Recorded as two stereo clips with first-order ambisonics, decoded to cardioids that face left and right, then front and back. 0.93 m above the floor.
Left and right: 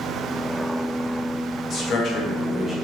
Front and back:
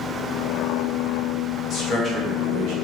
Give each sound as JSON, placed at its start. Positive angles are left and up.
{"t": 1.7, "sound": "a man speaking", "azimuth_deg": 40, "distance_m": 0.8}